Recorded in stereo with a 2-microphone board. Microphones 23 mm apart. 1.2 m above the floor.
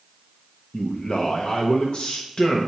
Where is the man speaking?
45° left (ahead or behind), 0.8 m.